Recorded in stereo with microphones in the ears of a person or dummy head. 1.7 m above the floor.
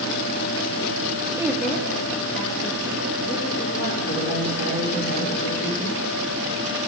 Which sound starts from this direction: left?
A man speaking, at 4.1 s.